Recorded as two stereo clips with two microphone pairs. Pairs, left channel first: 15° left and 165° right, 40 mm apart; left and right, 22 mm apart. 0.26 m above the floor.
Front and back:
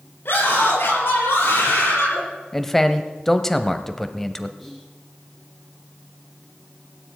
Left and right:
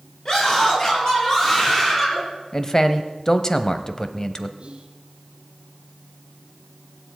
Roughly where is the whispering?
Right.